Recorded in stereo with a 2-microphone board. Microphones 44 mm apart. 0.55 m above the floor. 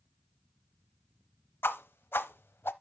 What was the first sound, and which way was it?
A whoosh, 60° left (ahead or behind).